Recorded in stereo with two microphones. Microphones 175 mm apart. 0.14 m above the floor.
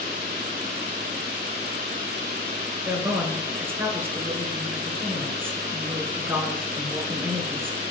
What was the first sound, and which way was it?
A woman speaking, 10° right (ahead or behind).